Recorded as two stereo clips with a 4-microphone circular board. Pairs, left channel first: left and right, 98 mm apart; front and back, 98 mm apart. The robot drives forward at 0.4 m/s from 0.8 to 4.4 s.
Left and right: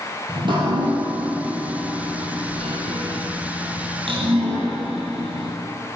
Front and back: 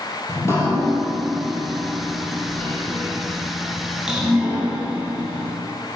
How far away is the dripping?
About 2 m.